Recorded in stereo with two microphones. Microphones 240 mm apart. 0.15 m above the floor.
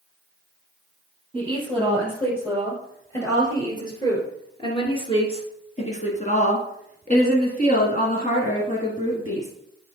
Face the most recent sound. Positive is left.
turn(degrees=30)  # may be behind; listen again after turning